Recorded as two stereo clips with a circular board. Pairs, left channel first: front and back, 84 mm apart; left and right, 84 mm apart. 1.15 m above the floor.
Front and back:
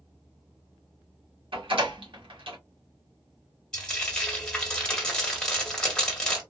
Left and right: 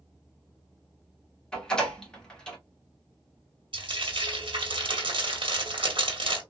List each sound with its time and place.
1.5 s a door slam: 170° left, 1.5 m
3.7 s frying: 80° right, 1.4 m